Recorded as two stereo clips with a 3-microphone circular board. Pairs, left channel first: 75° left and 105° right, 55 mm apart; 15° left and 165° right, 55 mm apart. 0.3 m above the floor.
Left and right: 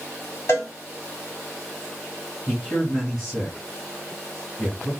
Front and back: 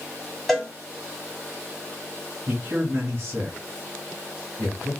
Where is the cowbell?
105° left, 1.5 m.